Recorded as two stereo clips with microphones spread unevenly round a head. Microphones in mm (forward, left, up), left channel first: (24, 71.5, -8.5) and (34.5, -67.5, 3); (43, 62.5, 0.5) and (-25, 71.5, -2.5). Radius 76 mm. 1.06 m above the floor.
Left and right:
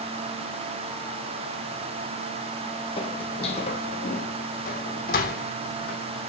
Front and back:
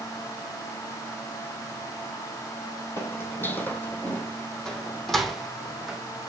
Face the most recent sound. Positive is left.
turn(degrees=90)